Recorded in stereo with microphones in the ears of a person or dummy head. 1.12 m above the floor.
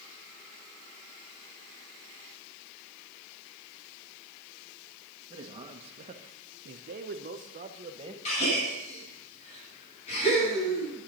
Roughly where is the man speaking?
Right.